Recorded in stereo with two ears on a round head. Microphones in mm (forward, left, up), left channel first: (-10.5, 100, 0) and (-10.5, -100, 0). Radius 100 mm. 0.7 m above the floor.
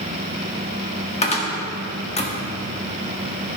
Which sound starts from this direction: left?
A cupboard door, at 1.2 s.